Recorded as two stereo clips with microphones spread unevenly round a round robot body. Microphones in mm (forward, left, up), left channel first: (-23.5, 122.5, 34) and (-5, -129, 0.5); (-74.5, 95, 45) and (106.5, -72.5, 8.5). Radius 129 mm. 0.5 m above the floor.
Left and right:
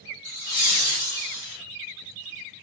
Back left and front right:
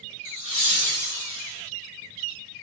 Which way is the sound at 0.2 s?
100° left.